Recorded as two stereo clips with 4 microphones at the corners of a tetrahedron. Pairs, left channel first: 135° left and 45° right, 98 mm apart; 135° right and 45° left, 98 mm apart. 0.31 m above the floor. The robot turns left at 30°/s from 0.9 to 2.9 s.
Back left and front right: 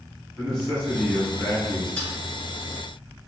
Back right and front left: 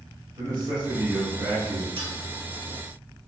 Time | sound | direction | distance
0.4 | a man speaking | 50° left | 1.7 m
2.0 | a dropped coin | 55° left | 1.1 m